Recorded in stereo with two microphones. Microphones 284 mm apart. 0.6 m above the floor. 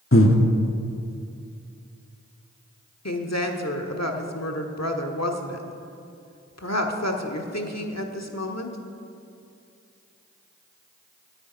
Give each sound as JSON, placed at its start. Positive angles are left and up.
{"t": 0.1, "sound": "breathing", "side_deg": 50, "distance_m": 1.1}
{"t": 3.0, "sound": "a woman speaking", "side_deg": 65, "distance_m": 1.3}